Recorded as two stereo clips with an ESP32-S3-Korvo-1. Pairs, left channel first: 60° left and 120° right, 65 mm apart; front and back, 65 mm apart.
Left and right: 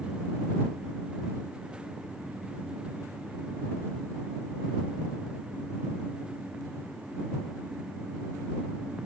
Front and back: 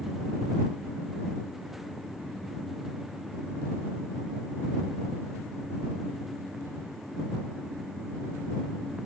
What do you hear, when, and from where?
Only background noise.